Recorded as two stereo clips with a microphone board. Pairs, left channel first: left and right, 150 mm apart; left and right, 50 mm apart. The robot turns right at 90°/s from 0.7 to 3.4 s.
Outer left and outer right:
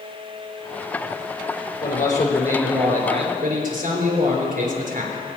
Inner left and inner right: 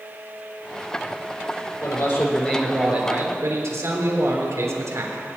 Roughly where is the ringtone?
No ringtone in this recording.